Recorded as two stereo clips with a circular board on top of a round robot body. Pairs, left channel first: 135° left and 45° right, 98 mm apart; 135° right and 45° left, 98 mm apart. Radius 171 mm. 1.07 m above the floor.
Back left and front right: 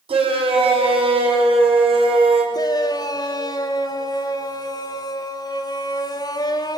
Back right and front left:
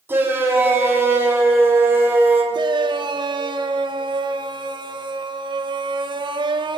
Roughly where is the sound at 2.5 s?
Left.